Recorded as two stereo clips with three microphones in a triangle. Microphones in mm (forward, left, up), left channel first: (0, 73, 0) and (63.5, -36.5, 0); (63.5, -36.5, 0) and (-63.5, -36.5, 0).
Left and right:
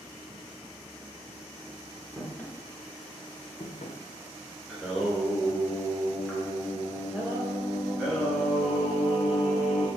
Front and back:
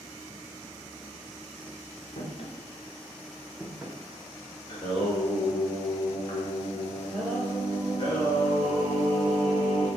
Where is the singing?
30° left, 1.3 m.